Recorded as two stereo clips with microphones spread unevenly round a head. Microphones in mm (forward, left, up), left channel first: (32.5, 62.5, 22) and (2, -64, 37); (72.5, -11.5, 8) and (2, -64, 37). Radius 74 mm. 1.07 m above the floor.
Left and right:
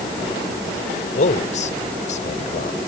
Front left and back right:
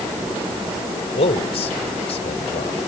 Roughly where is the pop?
I don't hear a pop.